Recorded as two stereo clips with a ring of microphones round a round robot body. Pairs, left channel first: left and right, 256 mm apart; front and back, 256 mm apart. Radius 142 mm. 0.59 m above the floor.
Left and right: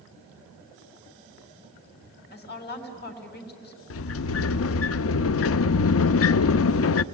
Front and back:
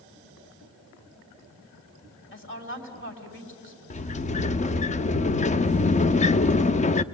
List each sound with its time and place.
2.3 s a woman speaking: 40° left, 4 m
3.9 s a sliding door: 60° left, 0.5 m